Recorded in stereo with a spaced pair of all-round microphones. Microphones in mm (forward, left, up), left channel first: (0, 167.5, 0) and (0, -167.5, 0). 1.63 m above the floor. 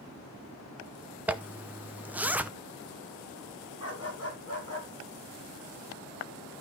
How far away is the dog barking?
About 3.5 m.